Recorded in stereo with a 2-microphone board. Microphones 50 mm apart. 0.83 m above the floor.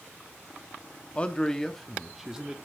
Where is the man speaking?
25° left (ahead or behind), 1.0 m; by 2.6 s 15° right (ahead or behind), 1.4 m.